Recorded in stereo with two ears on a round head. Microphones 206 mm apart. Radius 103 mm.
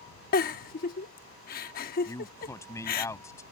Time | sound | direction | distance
0.3 | a giggle | 40° left (ahead or behind) | ?
2.1 | a man speaking | 15° left (ahead or behind) | ?